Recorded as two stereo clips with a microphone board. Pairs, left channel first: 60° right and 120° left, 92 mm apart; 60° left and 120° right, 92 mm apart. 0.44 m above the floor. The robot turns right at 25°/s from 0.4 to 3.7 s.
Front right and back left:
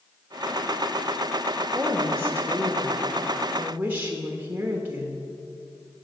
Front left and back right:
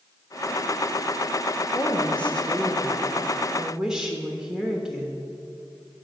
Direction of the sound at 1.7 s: 115° left.